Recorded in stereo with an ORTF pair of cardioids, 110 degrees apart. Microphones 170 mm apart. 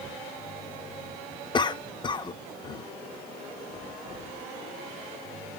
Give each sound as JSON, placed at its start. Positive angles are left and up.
{"t": 1.5, "sound": "a cough", "azimuth_deg": 30, "distance_m": 1.0}